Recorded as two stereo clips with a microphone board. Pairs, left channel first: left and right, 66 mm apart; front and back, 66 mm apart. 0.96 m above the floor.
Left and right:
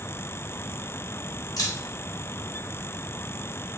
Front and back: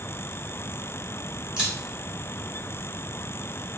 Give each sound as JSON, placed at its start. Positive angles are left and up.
{"t": 1.6, "sound": "a camera shutter", "azimuth_deg": 105, "distance_m": 1.3}